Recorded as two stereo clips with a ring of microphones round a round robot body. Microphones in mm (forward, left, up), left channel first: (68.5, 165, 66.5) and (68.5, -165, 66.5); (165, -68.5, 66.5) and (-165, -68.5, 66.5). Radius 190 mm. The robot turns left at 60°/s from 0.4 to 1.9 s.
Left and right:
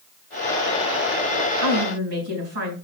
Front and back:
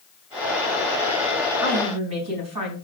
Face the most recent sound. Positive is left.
turn(degrees=-155)